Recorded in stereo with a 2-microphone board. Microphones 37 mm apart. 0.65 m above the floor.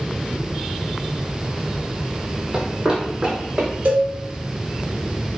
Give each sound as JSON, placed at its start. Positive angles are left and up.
{"t": 2.5, "sound": "running footsteps", "side_deg": -25, "distance_m": 1.0}
{"t": 3.9, "sound": "a cowbell", "side_deg": -60, "distance_m": 1.0}